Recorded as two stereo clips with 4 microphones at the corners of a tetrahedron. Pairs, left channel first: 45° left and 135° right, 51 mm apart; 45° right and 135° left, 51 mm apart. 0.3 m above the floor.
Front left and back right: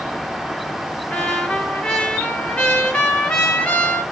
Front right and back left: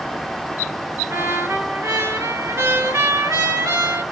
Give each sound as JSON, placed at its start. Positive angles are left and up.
{"t": 1.1, "sound": "a trumpet", "azimuth_deg": 115, "distance_m": 1.7}